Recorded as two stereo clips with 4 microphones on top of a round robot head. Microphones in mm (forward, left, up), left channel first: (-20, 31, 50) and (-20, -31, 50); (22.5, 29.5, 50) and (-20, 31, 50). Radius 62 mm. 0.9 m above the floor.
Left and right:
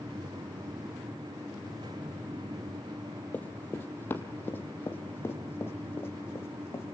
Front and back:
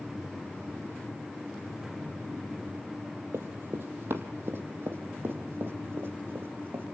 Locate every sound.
3.3 s running footsteps: 155° left, 1.7 m; by 7.0 s 140° left, 3.5 m